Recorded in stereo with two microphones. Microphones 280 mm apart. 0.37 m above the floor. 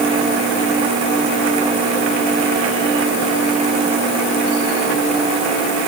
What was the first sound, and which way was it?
Only background noise.